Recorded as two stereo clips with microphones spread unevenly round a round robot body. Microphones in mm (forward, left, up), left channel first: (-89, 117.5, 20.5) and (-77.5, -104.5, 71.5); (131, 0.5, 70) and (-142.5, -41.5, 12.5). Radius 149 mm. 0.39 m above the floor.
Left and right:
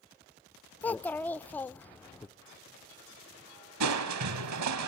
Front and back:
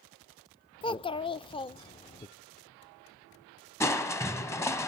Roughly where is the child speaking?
Left.